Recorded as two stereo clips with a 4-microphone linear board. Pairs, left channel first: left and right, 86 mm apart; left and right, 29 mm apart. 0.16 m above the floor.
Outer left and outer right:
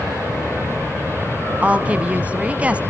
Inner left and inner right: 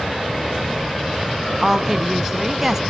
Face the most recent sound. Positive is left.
turn(degrees=-15)  # may be behind; listen again after turning